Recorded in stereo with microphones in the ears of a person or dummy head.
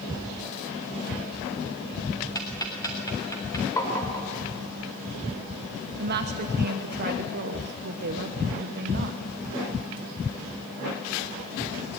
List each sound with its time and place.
2.4 s ticking: 20° left (ahead or behind), 3 m
3.8 s tapping: 15° left (ahead or behind), 4 m
6.0 s a woman speaking: 55° right (ahead or behind), 1.2 m